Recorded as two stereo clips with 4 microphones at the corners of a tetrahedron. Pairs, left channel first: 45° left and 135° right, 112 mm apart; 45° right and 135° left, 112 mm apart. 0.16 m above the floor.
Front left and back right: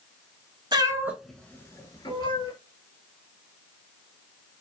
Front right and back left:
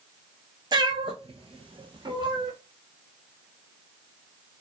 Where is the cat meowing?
Straight behind, 0.5 m; by 2.5 s 90° left, 1.0 m.